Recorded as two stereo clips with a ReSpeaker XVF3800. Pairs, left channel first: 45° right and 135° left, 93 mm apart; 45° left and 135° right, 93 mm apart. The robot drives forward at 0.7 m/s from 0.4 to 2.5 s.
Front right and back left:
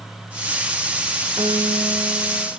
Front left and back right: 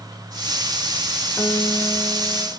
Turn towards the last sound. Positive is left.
turn(degrees=125)